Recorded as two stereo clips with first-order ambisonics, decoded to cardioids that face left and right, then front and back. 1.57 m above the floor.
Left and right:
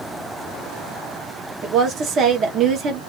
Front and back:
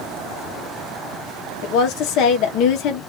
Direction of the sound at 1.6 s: 35° right.